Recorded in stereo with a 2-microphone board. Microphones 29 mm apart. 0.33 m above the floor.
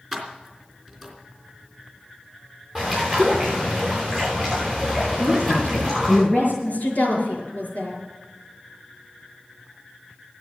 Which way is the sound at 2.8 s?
10° left (ahead or behind).